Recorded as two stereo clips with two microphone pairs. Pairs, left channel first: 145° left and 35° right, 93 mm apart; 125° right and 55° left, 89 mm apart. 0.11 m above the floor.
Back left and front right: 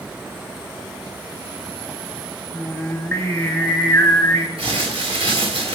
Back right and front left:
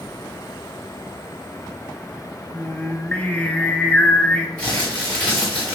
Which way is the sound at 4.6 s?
45° right.